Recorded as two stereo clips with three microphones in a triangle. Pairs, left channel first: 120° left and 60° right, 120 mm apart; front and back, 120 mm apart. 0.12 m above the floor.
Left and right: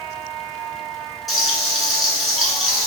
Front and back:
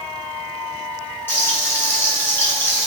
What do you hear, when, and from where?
1.3 s frying: 30° left, 1.8 m